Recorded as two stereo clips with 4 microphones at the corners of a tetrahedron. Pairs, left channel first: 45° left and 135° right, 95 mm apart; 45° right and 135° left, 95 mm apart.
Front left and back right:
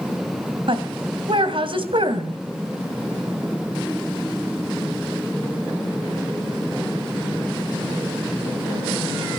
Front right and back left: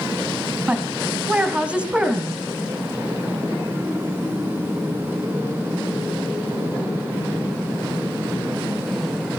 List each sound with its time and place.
0.7 s a woman speaking: 150° right, 2.5 m